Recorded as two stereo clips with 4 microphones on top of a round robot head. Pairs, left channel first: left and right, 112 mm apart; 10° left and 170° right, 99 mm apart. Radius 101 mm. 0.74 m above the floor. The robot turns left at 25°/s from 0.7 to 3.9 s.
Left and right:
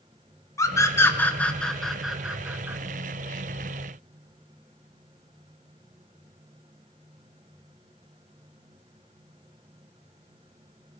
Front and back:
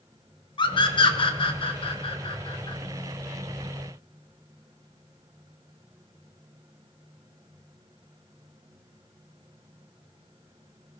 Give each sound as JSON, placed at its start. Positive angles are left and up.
{"t": 0.6, "sound": "a scream", "azimuth_deg": 30, "distance_m": 2.0}